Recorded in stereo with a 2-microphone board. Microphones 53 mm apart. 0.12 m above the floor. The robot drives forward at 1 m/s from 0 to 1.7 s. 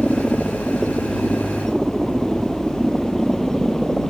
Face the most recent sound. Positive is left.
turn(degrees=5)  # may be behind; listen again after turning